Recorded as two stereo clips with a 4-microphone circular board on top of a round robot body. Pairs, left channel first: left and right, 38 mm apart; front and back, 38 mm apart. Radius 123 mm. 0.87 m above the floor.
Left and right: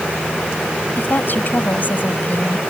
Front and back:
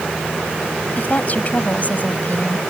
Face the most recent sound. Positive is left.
turn(degrees=50)